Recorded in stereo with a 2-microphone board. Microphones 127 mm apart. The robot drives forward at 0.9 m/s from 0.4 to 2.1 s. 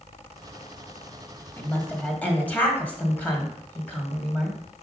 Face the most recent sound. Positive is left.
turn(degrees=15)  # may be behind; listen again after turning